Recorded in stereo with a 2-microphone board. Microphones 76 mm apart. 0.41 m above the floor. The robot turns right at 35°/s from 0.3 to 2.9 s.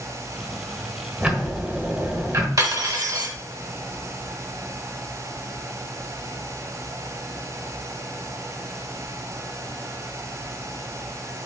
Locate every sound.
1.2 s ticking: 160° right, 1.1 m; by 2.5 s 115° right, 1.1 m
2.6 s cutlery clinking: 50° right (ahead or behind), 1.0 m; by 3.3 s 55° right (ahead or behind), 1.0 m